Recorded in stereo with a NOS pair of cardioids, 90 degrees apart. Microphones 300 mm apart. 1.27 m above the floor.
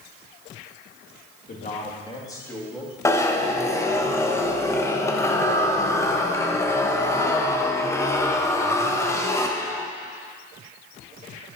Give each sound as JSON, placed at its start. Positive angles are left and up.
{"t": 1.5, "sound": "a man speaking", "azimuth_deg": 30, "distance_m": 2.5}
{"t": 3.0, "sound": "a zipper", "azimuth_deg": 10, "distance_m": 1.1}